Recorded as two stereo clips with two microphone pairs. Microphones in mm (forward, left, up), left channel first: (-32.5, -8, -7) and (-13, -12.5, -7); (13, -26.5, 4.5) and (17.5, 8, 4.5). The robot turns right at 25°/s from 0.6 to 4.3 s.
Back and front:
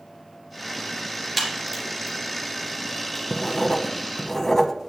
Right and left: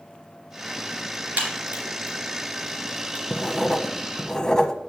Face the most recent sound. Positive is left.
turn(degrees=-150)